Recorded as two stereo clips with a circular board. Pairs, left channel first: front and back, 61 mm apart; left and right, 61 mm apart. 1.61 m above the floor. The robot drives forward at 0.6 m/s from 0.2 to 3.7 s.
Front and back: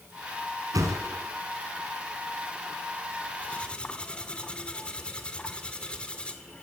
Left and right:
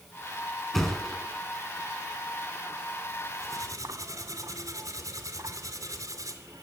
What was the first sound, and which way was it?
A thud, 175° left.